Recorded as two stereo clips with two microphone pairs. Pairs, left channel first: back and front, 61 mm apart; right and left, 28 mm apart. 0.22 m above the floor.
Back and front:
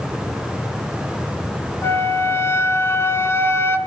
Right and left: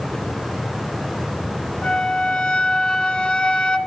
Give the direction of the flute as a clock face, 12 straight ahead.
5 o'clock.